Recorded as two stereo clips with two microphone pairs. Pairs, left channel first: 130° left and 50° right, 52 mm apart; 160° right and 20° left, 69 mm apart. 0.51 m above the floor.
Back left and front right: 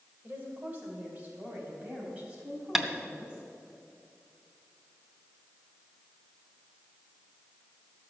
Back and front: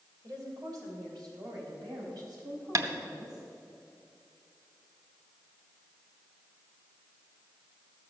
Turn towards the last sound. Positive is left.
turn(degrees=30)